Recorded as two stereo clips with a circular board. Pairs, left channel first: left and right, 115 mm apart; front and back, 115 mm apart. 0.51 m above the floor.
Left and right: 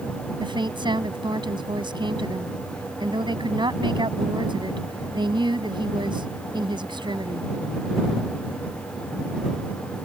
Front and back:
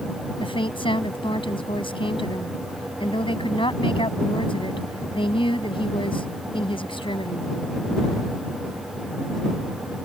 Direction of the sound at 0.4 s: 40° right.